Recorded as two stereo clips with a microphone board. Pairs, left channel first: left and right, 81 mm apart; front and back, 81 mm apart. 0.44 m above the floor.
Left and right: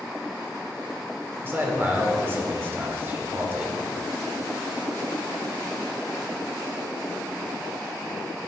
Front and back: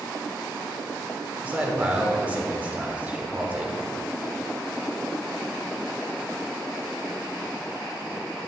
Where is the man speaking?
125° right, 1.2 m.